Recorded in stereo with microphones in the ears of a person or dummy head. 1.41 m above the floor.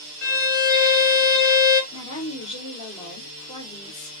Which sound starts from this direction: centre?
A violin, at 0.2 s.